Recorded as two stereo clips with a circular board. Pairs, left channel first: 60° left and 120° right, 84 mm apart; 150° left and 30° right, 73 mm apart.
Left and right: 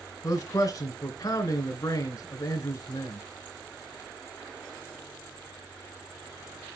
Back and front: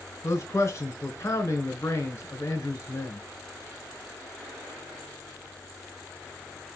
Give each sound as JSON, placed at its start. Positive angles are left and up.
{"t": 0.2, "sound": "a man speaking", "azimuth_deg": 100, "distance_m": 3.0}